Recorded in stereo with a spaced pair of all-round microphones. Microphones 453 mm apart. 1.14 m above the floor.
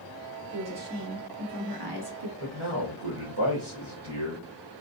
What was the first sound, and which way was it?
A woman speaking, 30° right (ahead or behind).